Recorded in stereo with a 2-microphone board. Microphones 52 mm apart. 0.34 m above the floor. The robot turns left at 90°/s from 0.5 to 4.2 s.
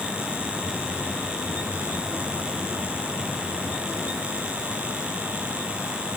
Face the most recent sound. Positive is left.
No sound to turn to.